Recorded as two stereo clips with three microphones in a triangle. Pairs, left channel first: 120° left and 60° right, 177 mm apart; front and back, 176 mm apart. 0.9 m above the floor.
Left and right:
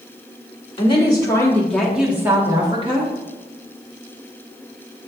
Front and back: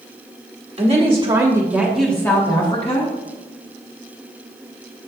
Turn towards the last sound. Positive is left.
turn(degrees=-25)